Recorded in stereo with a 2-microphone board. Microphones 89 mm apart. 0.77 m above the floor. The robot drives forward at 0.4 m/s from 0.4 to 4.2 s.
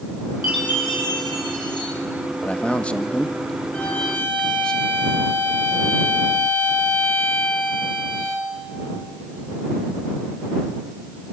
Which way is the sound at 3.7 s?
15° left (ahead or behind).